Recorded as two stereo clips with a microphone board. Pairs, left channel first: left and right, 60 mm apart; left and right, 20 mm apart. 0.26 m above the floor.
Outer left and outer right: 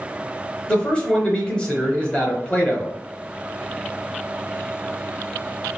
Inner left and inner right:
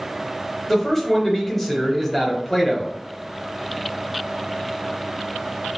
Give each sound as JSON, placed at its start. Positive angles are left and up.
{"t": 0.7, "sound": "a man speaking", "side_deg": 15, "distance_m": 1.1}